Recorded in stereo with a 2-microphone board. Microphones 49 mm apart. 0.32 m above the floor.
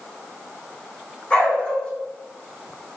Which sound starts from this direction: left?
A dog barking, at 1.3 s.